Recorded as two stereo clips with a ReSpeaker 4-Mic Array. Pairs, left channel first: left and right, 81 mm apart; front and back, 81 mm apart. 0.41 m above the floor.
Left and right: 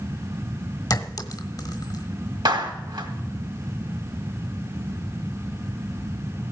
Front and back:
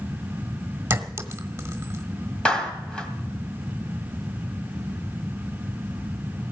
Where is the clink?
120° left, 1.1 m.